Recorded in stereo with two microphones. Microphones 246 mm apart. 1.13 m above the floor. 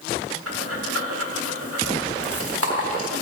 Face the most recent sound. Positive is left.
turn(degrees=-70)  # may be behind; listen again after turning